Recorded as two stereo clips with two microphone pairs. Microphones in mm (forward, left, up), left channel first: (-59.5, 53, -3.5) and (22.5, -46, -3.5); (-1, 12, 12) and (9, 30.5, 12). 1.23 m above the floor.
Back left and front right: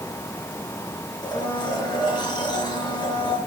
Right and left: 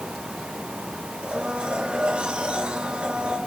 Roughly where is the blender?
Left.